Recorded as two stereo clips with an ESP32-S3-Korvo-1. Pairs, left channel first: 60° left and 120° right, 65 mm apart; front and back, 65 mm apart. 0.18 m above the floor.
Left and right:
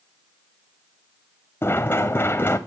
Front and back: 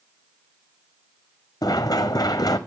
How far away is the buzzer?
I don't hear a buzzer.